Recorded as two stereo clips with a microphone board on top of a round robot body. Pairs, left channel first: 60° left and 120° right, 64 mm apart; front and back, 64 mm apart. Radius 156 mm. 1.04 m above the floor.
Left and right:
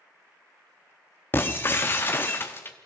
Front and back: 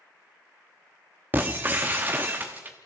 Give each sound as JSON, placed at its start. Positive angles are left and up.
{"t": 1.3, "sound": "breaking glass", "azimuth_deg": 115, "distance_m": 0.8}